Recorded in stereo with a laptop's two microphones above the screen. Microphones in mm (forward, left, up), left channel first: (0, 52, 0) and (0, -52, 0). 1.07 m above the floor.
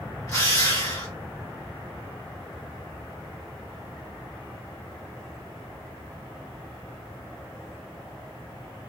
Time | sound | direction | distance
0.3 | a drill | 35° left (ahead or behind) | 1.4 m